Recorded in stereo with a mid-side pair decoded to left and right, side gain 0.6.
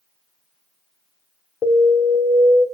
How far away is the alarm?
About 3 m.